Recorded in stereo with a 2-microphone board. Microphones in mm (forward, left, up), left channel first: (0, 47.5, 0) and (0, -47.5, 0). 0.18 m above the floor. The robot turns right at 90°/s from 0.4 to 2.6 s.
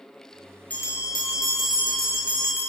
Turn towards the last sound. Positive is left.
turn(degrees=-175)